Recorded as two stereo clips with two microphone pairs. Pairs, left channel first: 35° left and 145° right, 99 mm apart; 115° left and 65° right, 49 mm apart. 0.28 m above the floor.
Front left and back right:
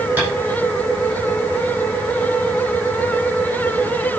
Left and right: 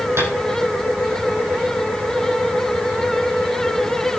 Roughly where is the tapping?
Right.